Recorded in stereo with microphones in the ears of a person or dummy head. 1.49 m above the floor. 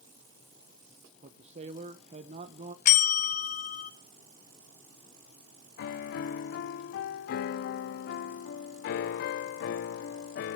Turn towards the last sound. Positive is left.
turn(degrees=60)  # may be behind; listen again after turning